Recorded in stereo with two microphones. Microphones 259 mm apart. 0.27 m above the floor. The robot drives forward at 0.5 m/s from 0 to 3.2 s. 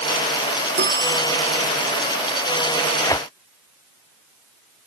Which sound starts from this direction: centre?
Tearing paper, at 3.0 s.